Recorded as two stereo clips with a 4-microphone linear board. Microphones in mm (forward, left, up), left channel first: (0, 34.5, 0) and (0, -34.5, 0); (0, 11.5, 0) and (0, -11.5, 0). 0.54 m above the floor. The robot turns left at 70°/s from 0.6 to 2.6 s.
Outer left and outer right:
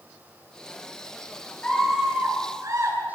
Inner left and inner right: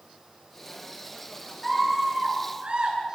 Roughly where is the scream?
Ahead.